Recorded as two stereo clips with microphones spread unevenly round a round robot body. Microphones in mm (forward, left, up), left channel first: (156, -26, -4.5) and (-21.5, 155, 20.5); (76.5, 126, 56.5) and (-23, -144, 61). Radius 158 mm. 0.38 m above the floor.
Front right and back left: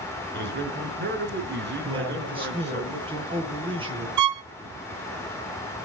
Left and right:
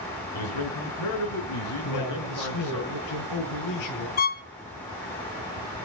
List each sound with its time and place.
0.3 s a man speaking: 90° left, 5.5 m
1.8 s a man speaking: 65° left, 9.5 m
4.2 s a violin: 130° left, 0.6 m